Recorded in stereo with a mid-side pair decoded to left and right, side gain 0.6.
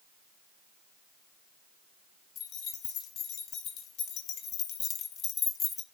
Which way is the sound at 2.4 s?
70° left.